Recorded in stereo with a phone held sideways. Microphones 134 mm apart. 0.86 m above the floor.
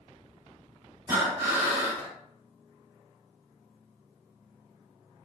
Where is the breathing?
20° right (ahead or behind), 1.5 m.